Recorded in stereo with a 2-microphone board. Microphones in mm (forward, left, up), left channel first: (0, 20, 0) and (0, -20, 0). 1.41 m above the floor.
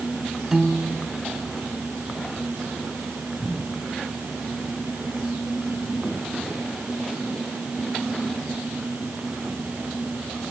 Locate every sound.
0.5 s a piano: 15° right (ahead or behind)